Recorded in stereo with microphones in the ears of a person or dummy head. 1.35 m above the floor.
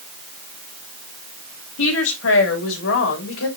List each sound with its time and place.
1.8 s a woman speaking: 85° left, 2.5 m; by 3.5 s 80° left, 3 m